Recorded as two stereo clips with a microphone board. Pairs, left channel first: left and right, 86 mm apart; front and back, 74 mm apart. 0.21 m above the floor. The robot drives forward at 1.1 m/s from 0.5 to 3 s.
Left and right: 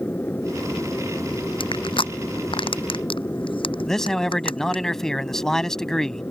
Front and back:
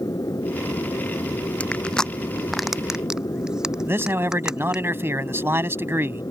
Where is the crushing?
75° left; by 4.8 s 100° left.